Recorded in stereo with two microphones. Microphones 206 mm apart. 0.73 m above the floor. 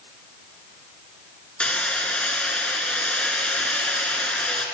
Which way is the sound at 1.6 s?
5° left (ahead or behind).